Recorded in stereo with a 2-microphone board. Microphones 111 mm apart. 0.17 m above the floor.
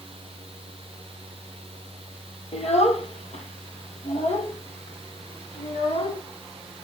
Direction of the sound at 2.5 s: 75° left (ahead or behind).